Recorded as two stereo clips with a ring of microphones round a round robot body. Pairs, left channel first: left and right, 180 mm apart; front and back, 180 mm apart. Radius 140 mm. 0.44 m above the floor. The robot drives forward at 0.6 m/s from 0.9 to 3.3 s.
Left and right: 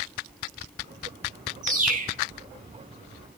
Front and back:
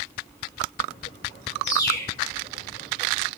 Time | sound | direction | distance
1.6 | a bird | 50° right | 6 m